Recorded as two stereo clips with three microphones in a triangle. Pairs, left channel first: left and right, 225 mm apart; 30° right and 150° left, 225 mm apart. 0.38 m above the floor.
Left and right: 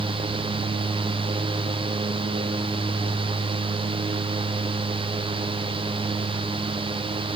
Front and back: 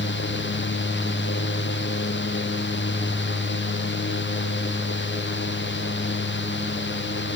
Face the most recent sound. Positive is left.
No sound to turn to.